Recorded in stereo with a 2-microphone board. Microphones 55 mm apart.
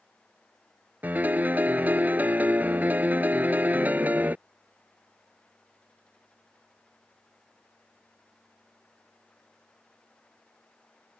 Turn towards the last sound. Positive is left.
turn(degrees=-30)  # may be behind; listen again after turning